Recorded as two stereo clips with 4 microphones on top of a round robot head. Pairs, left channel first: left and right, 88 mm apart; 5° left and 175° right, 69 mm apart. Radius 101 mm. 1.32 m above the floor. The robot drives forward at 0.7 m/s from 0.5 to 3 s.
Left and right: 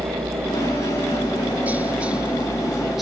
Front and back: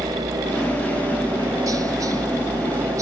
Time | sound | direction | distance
0.0 | a helicopter | 145° right | ?